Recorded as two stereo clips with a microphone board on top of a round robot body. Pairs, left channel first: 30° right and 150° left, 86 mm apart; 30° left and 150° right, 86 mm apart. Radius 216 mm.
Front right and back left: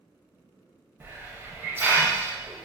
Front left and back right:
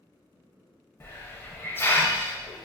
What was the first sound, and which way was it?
A hiss, 90° left.